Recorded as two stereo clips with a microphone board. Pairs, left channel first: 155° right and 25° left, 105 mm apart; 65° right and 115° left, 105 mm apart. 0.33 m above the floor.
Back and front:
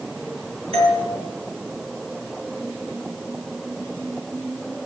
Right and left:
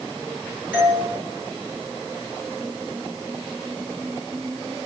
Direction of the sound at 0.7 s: 45° left.